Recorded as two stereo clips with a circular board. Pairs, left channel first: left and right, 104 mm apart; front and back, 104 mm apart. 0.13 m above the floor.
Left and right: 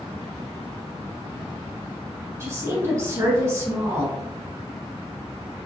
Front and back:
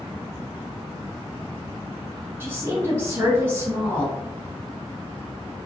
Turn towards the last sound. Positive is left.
turn(degrees=-130)